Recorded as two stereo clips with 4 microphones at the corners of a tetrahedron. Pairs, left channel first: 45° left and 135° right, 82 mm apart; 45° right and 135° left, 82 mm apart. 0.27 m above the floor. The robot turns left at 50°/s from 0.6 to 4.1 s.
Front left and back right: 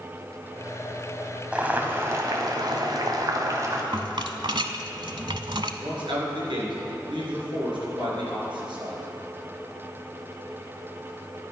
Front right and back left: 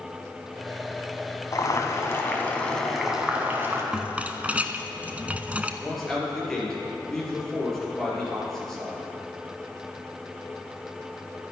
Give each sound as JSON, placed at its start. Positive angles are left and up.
{"t": 1.5, "sound": "boiling", "azimuth_deg": -65, "distance_m": 1.7}
{"t": 3.9, "sound": "a rattle", "azimuth_deg": -145, "distance_m": 0.7}
{"t": 5.8, "sound": "a man speaking", "azimuth_deg": -130, "distance_m": 4.5}